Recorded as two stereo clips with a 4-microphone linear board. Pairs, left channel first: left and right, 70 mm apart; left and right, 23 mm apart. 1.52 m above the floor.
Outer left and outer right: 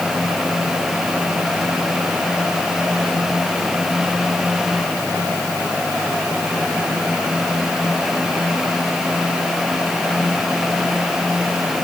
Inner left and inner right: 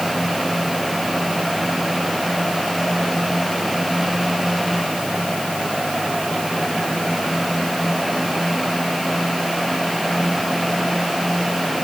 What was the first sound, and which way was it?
Only background noise.